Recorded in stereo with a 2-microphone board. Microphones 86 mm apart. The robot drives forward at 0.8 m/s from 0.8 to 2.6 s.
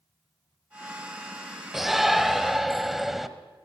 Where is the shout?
Centre (ahead or behind), 1.2 m.